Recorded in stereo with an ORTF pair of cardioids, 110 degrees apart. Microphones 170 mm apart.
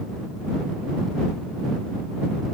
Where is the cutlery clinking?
No cutlery clinking in this recording.